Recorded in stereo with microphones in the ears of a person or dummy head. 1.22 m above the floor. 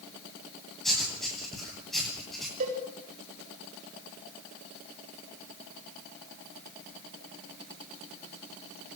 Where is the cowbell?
45° right (ahead or behind), 3.5 m.